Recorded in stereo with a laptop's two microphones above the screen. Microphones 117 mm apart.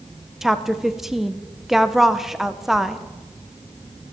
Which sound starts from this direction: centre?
A woman speaking, at 0.4 s.